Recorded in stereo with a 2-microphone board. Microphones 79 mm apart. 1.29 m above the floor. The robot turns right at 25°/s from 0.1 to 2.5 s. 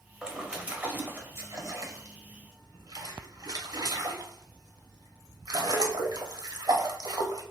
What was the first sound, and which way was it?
A splash, 10° right (ahead or behind).